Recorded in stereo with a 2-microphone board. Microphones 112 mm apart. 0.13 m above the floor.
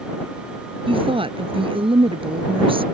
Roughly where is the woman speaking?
Right.